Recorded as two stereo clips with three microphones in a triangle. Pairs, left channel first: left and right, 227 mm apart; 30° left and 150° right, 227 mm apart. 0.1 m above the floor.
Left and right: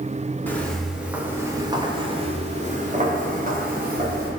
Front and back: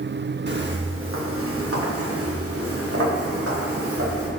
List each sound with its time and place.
0.5 s footsteps: 170° left, 1.5 m; by 4.3 s 135° right, 3 m